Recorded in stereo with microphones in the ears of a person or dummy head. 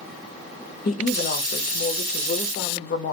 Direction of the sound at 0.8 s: 45° left (ahead or behind).